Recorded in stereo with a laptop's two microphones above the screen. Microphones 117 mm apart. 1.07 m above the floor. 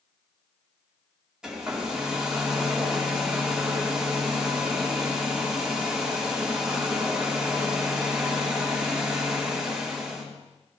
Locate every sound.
1.4 s a hair dryer: 5° right (ahead or behind), 2 m